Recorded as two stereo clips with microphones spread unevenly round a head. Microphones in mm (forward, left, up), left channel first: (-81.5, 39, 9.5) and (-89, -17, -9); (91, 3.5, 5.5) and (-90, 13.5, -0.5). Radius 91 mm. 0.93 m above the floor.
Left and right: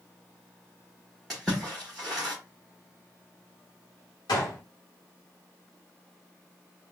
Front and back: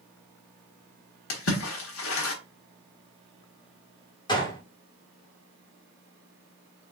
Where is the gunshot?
65° left, 1.3 m.